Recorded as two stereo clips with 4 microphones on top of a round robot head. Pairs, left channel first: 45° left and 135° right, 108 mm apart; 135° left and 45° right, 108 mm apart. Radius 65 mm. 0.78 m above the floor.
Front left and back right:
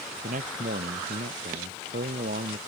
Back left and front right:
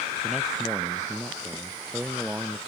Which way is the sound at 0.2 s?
130° right.